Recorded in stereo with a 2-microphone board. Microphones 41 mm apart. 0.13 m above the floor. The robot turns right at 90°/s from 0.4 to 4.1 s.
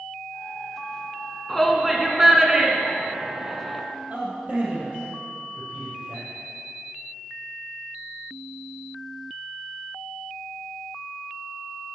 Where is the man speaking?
30° right (ahead or behind), 3 m.